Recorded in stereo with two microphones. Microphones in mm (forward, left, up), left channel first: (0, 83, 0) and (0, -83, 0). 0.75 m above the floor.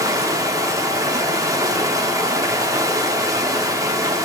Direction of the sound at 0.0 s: 20° right (ahead or behind).